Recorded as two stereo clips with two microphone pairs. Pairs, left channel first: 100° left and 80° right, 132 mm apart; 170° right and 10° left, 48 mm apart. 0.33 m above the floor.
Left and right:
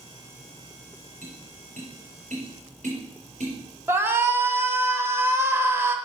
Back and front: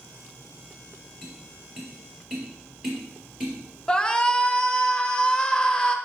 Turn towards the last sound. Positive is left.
turn(degrees=-125)